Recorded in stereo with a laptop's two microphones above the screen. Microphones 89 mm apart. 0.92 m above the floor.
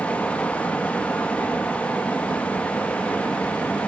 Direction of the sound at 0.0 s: 15° left (ahead or behind).